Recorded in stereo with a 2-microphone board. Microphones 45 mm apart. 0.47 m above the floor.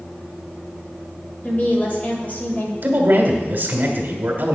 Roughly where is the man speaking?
Right.